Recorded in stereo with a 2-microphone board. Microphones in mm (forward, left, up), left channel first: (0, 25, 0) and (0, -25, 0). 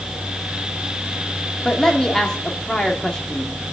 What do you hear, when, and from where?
1.6 s a man speaking: 10° left (ahead or behind), 1.5 m